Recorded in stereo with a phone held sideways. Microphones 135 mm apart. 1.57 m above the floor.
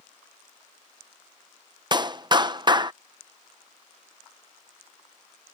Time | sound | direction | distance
1.9 | a clap | 30° right (ahead or behind) | ?